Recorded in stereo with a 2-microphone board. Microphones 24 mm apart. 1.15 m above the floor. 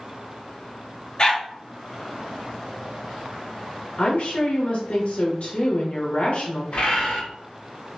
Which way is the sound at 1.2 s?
35° left (ahead or behind).